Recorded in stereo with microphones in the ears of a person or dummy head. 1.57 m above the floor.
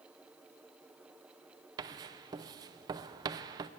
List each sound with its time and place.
1.8 s writing: 20° right (ahead or behind), 0.6 m